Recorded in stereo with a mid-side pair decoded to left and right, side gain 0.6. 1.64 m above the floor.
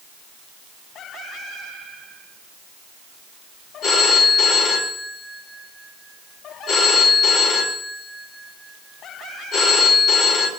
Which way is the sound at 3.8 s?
50° left.